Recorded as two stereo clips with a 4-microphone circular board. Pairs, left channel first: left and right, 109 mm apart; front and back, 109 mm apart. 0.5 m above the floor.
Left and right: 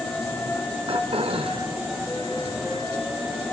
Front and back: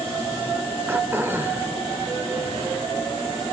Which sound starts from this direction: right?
Throat clearing, at 0.9 s.